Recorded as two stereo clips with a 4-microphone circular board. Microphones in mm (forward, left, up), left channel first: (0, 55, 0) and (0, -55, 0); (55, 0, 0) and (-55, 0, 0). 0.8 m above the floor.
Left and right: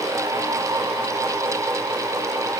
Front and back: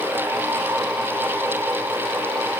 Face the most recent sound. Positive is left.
No sound to turn to.